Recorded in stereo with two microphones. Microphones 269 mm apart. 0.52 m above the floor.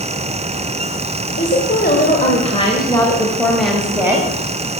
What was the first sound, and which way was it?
A woman speaking, 45° left (ahead or behind).